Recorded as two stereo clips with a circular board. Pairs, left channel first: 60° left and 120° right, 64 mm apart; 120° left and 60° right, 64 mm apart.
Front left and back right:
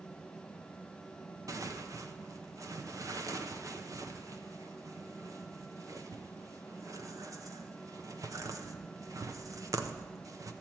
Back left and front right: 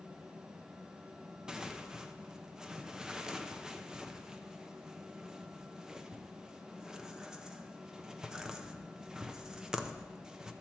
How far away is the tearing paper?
About 0.6 m.